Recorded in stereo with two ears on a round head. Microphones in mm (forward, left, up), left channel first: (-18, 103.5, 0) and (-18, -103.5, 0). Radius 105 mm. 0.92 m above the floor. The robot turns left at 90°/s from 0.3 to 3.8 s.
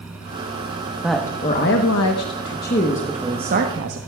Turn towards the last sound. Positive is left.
turn(degrees=-65)